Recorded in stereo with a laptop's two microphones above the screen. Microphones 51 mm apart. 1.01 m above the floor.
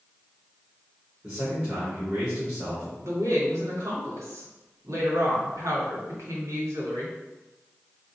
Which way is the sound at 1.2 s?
25° right (ahead or behind).